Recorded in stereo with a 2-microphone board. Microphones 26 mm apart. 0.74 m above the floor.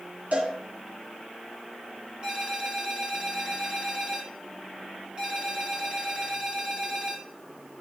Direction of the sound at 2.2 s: 35° right (ahead or behind).